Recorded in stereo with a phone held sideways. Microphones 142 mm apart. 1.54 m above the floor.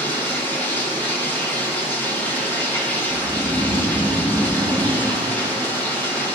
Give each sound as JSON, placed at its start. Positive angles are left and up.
{"t": 0.0, "sound": "running water", "side_deg": 15, "distance_m": 0.9}
{"t": 3.1, "sound": "snoring", "side_deg": 30, "distance_m": 2.5}